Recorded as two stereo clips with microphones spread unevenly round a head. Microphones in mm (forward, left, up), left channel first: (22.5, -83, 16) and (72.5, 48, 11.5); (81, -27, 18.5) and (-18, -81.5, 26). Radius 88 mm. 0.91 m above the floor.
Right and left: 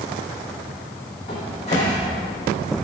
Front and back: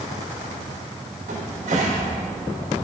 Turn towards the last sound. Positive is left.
turn(degrees=-165)